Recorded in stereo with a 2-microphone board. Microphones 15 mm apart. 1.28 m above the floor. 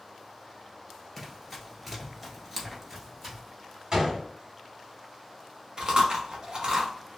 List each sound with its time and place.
1.2 s running footsteps: 5° right (ahead or behind), 1.4 m; by 3.4 s 10° right (ahead or behind), 1.5 m
3.9 s a gunshot: 35° right (ahead or behind), 1.5 m
5.8 s chewing: 55° right (ahead or behind), 0.9 m